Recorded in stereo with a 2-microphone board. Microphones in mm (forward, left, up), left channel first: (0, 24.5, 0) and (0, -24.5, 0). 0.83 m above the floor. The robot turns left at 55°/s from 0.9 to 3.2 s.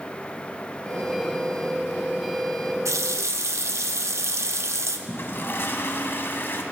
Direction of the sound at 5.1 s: 50° left (ahead or behind).